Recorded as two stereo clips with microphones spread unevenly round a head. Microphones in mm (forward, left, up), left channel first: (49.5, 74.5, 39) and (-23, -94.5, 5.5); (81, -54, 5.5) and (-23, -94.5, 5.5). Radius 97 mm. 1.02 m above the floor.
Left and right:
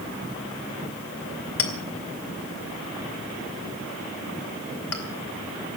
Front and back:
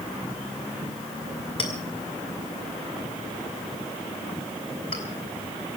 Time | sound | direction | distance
1.6 | a clink | 90° left | 2.5 m